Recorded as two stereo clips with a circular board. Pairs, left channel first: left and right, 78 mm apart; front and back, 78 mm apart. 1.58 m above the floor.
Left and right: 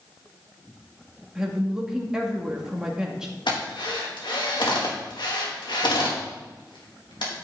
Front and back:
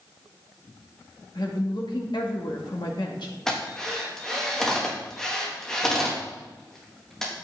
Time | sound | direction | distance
1.4 | a woman speaking | 10° right | 2.5 m
3.5 | a drill | 85° left | 3 m